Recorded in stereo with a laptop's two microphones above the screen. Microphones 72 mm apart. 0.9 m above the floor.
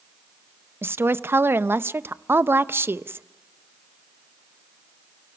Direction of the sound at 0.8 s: 30° right (ahead or behind).